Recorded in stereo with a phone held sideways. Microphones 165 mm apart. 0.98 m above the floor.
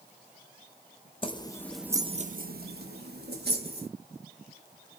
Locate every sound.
1.2 s keys jangling: 30° left (ahead or behind), 0.8 m; by 3.9 s 75° right (ahead or behind), 1.8 m